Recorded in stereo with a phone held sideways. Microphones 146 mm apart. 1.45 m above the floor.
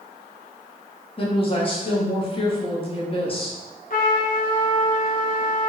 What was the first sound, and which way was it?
A woman speaking, 35° left (ahead or behind).